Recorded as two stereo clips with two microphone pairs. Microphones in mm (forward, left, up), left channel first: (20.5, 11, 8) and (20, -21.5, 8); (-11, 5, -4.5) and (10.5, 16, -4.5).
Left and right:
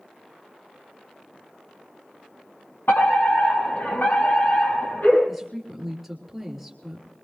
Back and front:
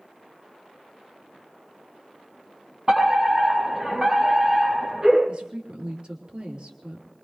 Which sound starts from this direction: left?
A fire alarm, at 2.9 s.